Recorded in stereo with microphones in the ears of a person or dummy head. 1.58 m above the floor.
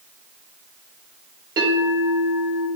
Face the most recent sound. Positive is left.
turn(degrees=-25)  # may be behind; listen again after turning